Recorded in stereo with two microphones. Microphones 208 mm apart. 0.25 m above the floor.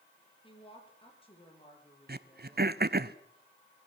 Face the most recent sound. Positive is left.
turn(degrees=-50)  # may be behind; listen again after turning